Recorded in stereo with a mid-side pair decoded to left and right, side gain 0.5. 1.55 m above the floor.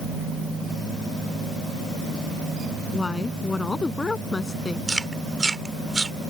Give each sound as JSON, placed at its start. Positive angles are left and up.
{"t": 2.9, "sound": "a woman speaking", "azimuth_deg": 25}
{"t": 4.9, "sound": "chewing", "azimuth_deg": -20}